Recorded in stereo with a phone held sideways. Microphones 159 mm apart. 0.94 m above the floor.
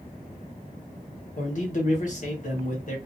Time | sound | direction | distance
1.4 | a man speaking | 55° left (ahead or behind) | 1.2 m